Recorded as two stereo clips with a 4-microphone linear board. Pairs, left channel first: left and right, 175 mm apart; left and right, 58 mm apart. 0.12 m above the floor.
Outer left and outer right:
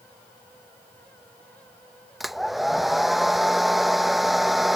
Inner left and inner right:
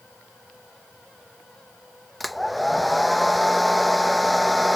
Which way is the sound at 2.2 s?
Centre (ahead or behind).